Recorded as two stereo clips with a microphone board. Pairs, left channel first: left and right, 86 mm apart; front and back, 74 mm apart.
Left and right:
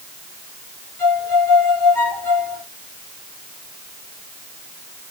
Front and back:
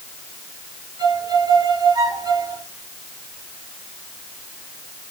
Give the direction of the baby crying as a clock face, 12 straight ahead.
I don't hear a baby crying.